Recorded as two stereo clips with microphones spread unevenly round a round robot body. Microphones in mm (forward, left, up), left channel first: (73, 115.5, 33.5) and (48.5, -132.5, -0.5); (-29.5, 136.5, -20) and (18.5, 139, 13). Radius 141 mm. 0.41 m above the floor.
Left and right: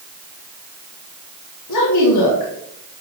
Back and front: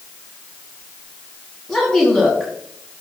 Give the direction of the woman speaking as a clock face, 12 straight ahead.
8 o'clock.